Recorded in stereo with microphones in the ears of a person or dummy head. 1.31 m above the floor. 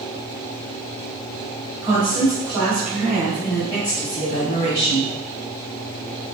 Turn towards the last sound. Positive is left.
turn(degrees=65)  # may be behind; listen again after turning